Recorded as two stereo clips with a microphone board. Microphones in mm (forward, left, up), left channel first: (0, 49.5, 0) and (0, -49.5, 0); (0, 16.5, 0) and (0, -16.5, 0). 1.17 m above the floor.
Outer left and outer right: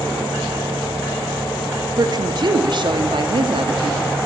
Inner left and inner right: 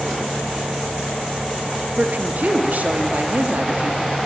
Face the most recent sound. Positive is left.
turn(degrees=-60)  # may be behind; listen again after turning